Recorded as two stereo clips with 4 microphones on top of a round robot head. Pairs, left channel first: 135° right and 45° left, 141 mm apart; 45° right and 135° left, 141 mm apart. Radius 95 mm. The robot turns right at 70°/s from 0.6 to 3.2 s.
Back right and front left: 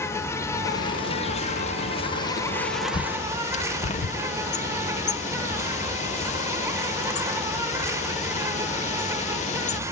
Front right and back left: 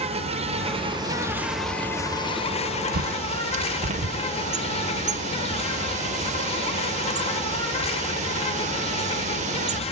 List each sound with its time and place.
0.0 s an insect: 155° left, 1.1 m; by 9.9 s 20° right, 1.1 m
2.9 s a bird: 160° left, 0.5 m; by 9.8 s straight behind, 0.5 m